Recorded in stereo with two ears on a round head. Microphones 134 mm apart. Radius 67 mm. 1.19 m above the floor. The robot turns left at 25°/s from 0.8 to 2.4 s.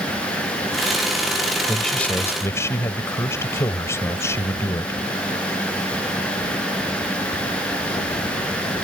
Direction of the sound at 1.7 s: Centre (ahead or behind).